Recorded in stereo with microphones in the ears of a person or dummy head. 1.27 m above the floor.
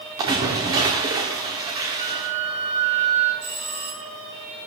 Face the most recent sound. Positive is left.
turn(degrees=-35)  # may be behind; listen again after turning